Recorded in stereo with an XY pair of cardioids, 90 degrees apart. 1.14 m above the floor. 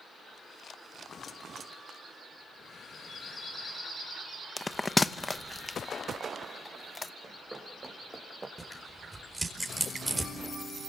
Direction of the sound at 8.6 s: 15° right.